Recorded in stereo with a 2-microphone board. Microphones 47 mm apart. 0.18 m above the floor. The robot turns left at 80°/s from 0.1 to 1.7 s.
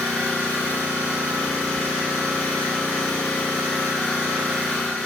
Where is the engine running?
150° left, 1.0 m; by 5.1 s 25° left, 1.0 m.